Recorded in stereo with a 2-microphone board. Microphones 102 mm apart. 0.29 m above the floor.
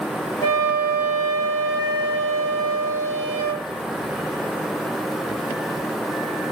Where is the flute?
30° left (ahead or behind), 2.5 m.